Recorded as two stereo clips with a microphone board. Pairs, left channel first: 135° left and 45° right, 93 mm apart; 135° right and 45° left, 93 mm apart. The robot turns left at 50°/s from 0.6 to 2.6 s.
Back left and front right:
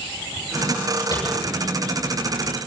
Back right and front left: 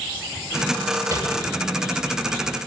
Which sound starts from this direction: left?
Tapping, at 1.1 s.